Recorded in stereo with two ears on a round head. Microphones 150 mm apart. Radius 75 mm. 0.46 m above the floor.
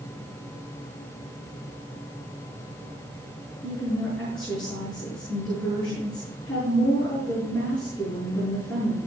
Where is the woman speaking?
5° left (ahead or behind), 6.5 m.